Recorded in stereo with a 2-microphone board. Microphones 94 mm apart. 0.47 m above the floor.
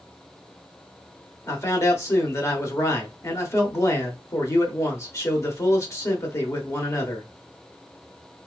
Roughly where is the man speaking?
Left.